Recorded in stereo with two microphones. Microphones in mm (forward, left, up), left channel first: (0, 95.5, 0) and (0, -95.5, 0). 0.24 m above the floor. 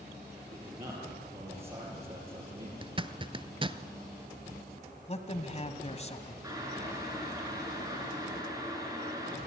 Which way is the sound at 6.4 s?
20° right (ahead or behind).